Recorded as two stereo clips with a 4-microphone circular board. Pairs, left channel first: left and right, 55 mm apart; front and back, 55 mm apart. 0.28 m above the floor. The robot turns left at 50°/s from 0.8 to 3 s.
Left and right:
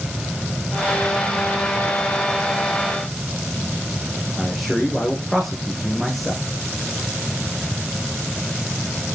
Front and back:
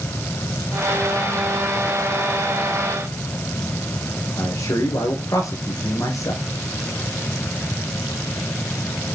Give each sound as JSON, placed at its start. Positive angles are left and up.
{"t": 4.4, "sound": "a man speaking", "azimuth_deg": 0, "distance_m": 6.5}